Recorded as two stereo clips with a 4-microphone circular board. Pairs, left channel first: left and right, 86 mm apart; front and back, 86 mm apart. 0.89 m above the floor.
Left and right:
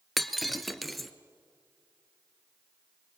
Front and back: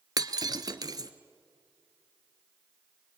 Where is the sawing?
I don't hear sawing.